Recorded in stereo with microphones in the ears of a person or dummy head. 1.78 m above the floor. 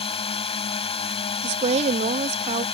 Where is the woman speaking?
35° right (ahead or behind).